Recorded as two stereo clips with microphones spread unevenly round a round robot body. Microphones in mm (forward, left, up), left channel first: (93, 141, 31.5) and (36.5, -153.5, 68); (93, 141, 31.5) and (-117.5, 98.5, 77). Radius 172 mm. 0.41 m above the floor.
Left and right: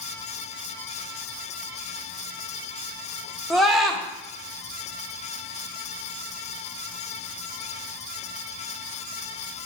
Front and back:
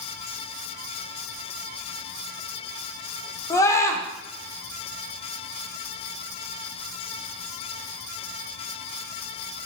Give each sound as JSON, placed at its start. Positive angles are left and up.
{"t": 3.5, "sound": "a scream", "azimuth_deg": 5, "distance_m": 1.1}